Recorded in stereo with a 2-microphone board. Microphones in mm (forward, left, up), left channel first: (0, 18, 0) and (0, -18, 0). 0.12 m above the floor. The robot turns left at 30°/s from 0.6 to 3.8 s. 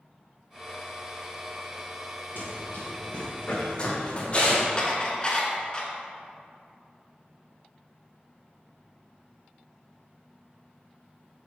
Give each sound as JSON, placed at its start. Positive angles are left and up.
{"t": 2.4, "sound": "running footsteps", "side_deg": 60, "distance_m": 1.6}
{"t": 4.8, "sound": "dishes clattering", "side_deg": 25, "distance_m": 1.1}